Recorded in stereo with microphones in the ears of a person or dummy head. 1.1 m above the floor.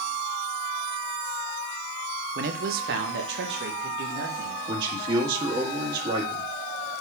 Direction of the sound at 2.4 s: 35° right (ahead or behind).